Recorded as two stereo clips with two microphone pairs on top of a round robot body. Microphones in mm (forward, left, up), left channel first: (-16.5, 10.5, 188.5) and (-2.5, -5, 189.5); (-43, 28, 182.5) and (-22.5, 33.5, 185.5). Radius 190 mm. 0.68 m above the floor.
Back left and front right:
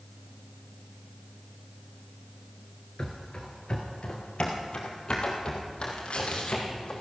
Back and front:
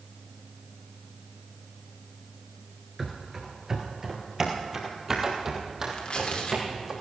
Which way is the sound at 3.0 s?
75° left.